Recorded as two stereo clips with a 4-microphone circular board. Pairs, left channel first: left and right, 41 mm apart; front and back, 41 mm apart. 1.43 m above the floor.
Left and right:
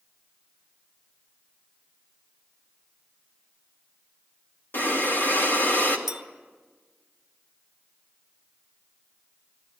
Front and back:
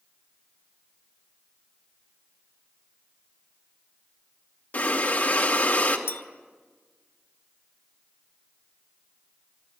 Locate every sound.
4.7 s breathing: 55° left, 2 m
6.1 s a clink: 10° right, 0.9 m